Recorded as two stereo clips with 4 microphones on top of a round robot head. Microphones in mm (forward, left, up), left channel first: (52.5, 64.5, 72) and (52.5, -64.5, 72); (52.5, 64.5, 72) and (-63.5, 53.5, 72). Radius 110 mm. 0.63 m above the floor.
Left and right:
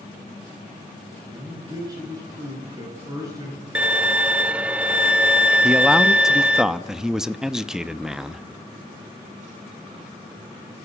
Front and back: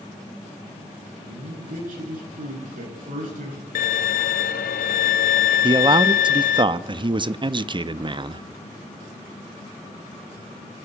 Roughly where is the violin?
Ahead.